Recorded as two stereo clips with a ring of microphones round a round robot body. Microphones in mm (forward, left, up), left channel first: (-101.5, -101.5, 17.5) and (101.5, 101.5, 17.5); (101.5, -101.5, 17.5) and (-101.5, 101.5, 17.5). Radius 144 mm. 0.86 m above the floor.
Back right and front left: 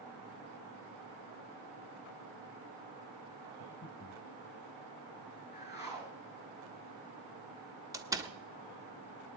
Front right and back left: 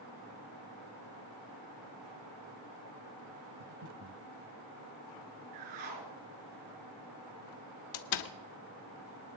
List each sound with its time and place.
3.6 s breathing: 170° left, 1.0 m
5.5 s a whoosh: 155° left, 4.5 m
7.9 s a door slam: 35° right, 1.0 m